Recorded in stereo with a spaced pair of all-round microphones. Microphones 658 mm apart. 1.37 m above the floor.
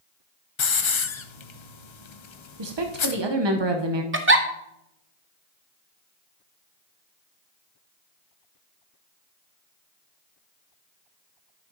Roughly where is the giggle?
Centre.